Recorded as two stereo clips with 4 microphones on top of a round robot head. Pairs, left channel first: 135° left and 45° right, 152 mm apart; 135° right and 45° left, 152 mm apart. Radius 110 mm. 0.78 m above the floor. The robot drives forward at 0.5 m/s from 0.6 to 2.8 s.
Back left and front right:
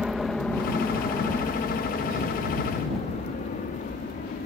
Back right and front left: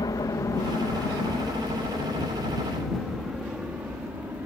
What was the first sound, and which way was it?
An aircraft, 130° right.